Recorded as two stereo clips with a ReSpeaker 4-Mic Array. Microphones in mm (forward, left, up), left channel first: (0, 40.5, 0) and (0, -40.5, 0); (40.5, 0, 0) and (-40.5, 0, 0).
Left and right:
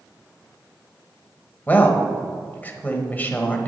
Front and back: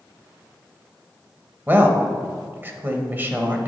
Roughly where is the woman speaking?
Behind left.